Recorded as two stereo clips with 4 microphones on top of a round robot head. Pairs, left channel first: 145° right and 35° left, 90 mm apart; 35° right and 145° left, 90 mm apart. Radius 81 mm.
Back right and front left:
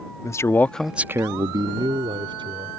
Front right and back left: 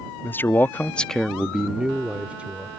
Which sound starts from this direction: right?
A man speaking, at 0.2 s.